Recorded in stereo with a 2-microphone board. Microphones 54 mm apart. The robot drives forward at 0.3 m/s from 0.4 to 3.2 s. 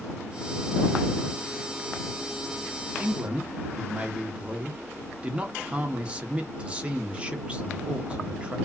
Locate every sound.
3.0 s a man speaking: 25° right (ahead or behind), 0.6 m